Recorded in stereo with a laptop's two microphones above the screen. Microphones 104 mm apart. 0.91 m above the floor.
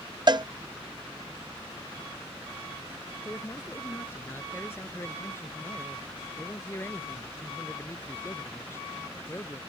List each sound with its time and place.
0.3 s a cowbell: 45° right (ahead or behind)
3.2 s a man speaking: 25° left (ahead or behind)